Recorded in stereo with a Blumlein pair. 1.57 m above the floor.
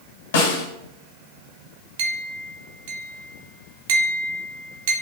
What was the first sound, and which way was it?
A snare drum, 55° left.